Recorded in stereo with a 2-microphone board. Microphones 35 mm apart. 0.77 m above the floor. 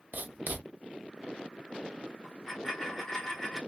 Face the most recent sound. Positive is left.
turn(degrees=15)  # may be behind; listen again after turning